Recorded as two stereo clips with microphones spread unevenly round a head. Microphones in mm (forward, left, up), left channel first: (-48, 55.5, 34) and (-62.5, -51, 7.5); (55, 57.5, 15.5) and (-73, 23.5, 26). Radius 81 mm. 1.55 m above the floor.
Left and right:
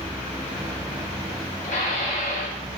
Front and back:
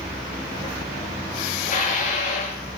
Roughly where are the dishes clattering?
Ahead left.